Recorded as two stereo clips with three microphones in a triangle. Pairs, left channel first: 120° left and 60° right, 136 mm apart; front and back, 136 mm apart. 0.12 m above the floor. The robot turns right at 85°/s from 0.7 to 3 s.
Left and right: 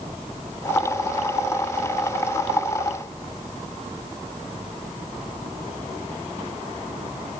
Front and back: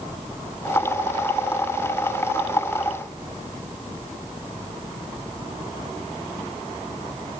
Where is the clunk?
I don't hear a clunk.